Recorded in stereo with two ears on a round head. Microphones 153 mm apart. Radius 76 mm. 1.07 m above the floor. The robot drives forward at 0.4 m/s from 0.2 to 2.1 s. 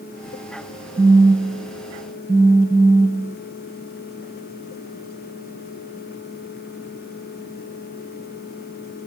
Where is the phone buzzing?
10° right (ahead or behind), 0.6 m; by 3.4 s 5° right (ahead or behind), 0.9 m.